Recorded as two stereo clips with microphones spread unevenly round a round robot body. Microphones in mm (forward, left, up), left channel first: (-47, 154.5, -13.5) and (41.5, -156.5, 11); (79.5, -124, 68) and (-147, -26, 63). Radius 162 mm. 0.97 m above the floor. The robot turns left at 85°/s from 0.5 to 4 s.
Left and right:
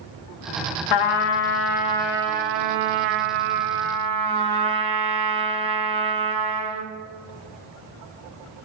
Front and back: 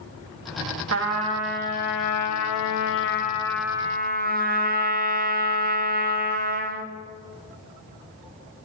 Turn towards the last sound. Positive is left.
turn(degrees=-150)